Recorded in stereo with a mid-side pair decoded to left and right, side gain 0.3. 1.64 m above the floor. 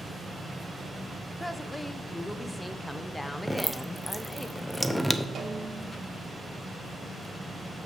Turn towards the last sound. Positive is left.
turn(degrees=-70)